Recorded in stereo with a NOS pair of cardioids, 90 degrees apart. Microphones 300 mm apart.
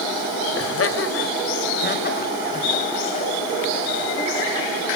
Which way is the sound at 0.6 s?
45° left.